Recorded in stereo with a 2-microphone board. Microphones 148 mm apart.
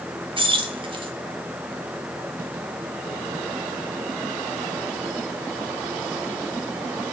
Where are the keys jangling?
35° right (ahead or behind), 0.8 m.